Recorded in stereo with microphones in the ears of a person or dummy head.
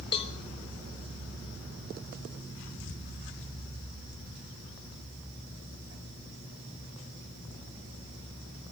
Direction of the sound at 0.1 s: 30° left (ahead or behind).